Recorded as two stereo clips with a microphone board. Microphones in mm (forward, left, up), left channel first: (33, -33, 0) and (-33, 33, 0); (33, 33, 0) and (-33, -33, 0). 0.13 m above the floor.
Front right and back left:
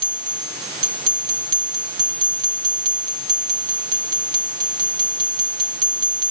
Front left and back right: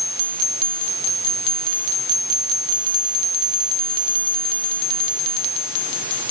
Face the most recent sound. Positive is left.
No sound to turn to.